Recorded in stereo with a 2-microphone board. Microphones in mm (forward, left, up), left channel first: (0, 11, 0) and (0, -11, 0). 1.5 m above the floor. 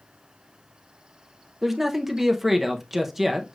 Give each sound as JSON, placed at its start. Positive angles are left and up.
{"t": 1.6, "sound": "a man speaking", "side_deg": -15, "distance_m": 0.8}